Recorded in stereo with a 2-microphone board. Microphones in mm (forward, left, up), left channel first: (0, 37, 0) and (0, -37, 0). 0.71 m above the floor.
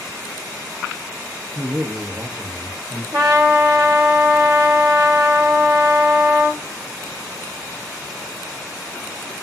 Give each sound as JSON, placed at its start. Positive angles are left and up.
{"t": 1.6, "sound": "a man speaking", "side_deg": -30, "distance_m": 0.6}
{"t": 3.1, "sound": "a trumpet", "side_deg": -60, "distance_m": 0.7}